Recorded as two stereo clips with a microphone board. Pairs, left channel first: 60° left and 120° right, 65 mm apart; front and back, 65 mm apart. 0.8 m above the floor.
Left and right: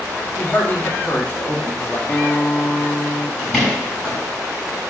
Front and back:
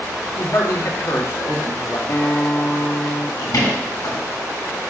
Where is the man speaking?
10° left, 2.0 m.